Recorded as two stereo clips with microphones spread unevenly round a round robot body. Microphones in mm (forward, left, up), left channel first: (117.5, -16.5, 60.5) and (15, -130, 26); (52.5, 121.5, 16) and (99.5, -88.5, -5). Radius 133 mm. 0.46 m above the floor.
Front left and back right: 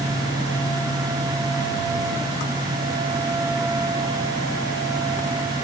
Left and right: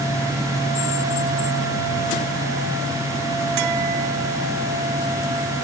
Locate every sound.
Only background noise.